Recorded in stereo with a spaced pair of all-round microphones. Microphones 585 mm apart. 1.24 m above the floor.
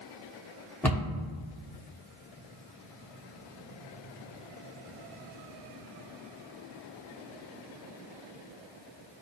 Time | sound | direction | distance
0.8 | a cupboard door | 5° left (ahead or behind) | 0.7 m